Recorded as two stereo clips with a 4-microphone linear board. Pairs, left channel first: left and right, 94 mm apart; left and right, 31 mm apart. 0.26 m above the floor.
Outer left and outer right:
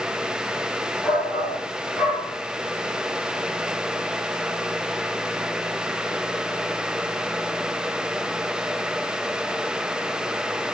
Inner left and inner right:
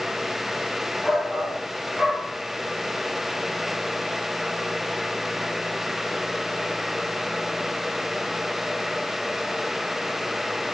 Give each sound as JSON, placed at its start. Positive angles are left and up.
{"t": 1.0, "sound": "a shout", "side_deg": -10, "distance_m": 4.0}